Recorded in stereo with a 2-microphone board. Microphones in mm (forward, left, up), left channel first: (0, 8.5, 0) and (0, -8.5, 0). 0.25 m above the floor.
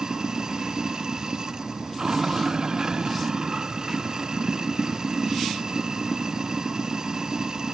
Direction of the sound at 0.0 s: 40° right (ahead or behind).